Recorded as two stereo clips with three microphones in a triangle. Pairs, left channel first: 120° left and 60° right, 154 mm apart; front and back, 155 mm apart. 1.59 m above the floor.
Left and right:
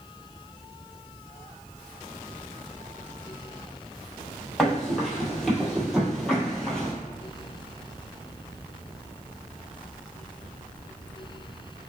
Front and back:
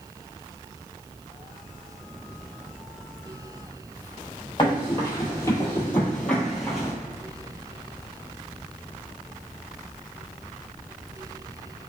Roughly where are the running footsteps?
Ahead left.